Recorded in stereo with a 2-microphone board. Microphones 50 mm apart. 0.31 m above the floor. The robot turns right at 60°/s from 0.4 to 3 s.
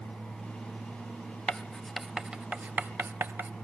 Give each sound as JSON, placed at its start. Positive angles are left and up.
{"t": 1.5, "sound": "writing", "side_deg": 20, "distance_m": 0.6}